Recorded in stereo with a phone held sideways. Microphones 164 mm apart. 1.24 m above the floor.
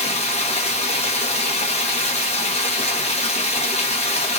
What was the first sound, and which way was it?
Running water, 40° left (ahead or behind).